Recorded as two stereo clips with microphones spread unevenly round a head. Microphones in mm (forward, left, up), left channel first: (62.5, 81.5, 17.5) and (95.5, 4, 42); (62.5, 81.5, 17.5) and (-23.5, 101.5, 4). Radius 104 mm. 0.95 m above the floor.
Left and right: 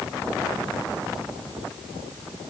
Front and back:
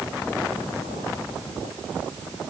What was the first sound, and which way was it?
Only background noise.